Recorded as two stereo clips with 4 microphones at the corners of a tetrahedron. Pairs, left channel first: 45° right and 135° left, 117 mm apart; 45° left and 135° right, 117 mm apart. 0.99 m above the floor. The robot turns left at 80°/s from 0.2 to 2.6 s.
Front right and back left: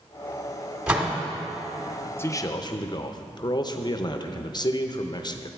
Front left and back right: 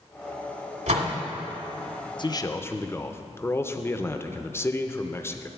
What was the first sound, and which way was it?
A door slam, 140° right.